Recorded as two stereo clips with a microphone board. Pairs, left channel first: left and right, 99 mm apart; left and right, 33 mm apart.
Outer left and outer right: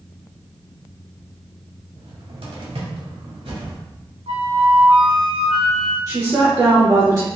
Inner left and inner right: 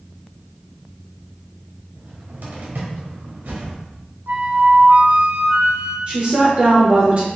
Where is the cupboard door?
75° right (ahead or behind), 1.3 m.